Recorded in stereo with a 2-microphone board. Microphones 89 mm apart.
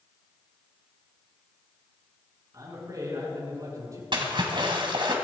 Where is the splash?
60° right (ahead or behind), 2.5 m.